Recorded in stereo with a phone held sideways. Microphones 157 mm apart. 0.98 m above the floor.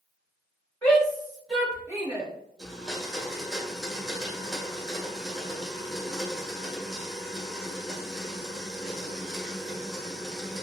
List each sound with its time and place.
0.8 s a shout: 10° left (ahead or behind), 2 m; by 2.3 s 25° right (ahead or behind), 1.4 m
2.6 s a blender: 5° right (ahead or behind), 1.4 m